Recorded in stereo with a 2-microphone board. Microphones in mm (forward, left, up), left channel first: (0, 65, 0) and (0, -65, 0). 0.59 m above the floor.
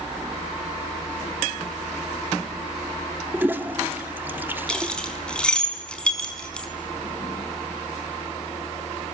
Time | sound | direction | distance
3.3 | a toilet flushing | 15° right (ahead or behind) | 1.2 m
4.7 | keys jangling | 10° left (ahead or behind) | 4.5 m